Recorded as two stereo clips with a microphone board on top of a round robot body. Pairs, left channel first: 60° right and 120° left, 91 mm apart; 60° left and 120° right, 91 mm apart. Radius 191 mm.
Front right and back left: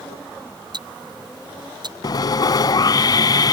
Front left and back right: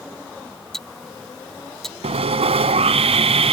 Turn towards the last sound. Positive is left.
turn(degrees=-110)